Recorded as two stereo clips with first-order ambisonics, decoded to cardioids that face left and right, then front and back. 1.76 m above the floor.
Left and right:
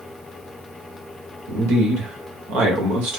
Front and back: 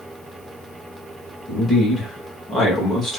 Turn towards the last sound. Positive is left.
turn(degrees=-85)